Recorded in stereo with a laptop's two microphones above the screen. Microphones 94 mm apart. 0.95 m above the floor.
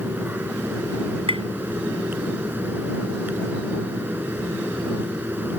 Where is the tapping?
80° right.